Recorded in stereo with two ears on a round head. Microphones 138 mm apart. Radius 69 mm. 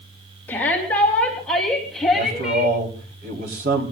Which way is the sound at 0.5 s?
15° left (ahead or behind).